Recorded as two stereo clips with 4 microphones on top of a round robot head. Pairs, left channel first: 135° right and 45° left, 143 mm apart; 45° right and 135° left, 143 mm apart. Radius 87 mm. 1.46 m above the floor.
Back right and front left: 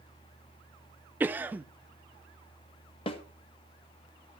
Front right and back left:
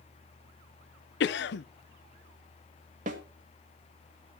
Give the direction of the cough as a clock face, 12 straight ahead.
1 o'clock.